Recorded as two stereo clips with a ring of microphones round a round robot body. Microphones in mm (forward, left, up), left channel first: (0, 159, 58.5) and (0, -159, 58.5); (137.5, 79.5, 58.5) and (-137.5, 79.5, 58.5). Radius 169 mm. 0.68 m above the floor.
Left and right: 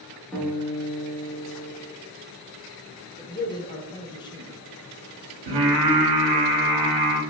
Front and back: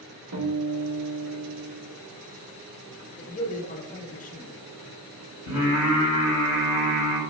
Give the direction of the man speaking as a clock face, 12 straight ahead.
11 o'clock.